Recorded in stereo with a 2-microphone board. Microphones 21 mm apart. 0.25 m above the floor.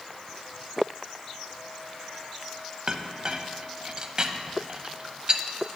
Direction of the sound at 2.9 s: 35° right (ahead or behind).